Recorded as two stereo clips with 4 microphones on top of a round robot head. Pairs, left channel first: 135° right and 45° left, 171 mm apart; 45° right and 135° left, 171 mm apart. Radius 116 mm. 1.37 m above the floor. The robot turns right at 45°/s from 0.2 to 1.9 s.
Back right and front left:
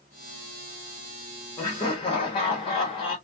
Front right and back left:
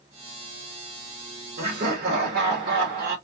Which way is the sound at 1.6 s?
150° left.